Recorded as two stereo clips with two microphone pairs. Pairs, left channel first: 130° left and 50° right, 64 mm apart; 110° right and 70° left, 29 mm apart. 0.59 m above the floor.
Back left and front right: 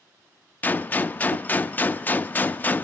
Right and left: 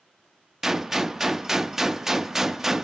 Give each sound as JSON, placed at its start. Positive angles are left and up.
{"t": 0.6, "sound": "a gunshot", "azimuth_deg": 135, "distance_m": 0.6}